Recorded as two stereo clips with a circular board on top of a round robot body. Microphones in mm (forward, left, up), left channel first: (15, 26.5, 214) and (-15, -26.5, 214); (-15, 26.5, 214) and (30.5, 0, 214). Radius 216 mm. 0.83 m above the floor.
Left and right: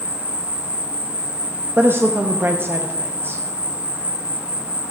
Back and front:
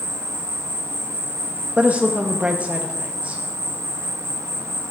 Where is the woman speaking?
85° right, 0.9 m.